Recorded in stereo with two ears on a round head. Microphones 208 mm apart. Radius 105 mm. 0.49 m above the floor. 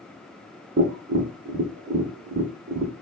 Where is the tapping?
50° right (ahead or behind), 0.7 m.